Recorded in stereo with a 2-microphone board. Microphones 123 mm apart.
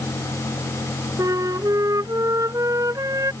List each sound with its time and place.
1.2 s a flute: 30° right (ahead or behind)